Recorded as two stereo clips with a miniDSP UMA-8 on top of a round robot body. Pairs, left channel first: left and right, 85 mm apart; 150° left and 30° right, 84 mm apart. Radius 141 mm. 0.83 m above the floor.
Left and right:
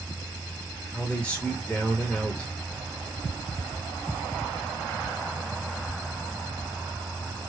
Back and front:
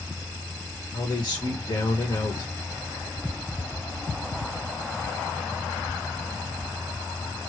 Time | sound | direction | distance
0.9 | a man speaking | 170° left | 1.2 m